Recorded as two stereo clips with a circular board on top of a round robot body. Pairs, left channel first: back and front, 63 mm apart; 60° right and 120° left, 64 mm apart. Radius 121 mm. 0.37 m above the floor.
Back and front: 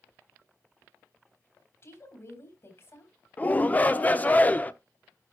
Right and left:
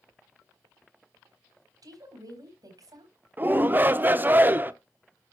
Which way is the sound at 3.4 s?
140° left.